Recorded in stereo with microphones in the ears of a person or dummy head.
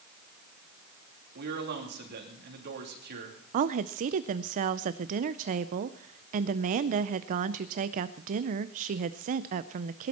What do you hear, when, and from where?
1.4 s a man speaking: 50° right (ahead or behind), 3 m
3.5 s a woman speaking: 40° right (ahead or behind), 0.5 m